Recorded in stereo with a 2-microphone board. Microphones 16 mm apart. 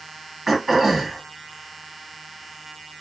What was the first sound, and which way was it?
Throat clearing, 15° right (ahead or behind).